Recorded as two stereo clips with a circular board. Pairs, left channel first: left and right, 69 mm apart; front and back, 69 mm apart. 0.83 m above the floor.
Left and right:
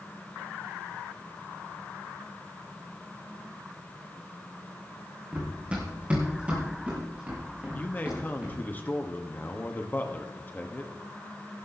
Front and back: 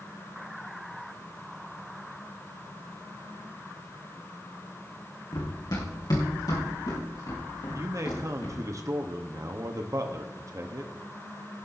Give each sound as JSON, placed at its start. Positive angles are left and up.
{"t": 5.3, "sound": "running footsteps", "azimuth_deg": -20, "distance_m": 3.0}
{"t": 7.8, "sound": "a man speaking", "azimuth_deg": 150, "distance_m": 0.8}